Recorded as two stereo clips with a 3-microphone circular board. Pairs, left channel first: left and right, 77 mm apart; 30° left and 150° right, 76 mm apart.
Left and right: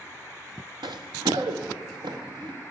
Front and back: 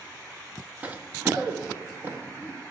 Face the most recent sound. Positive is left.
turn(degrees=-90)